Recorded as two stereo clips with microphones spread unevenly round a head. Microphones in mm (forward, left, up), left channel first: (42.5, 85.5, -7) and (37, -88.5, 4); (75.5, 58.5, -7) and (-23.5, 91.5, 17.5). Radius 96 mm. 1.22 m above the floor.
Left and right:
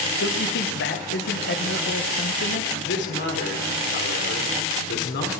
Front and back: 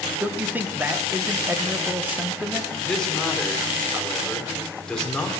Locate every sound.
0.2 s a man speaking: 85° left, 1.2 m
2.8 s a man speaking: 65° left, 3 m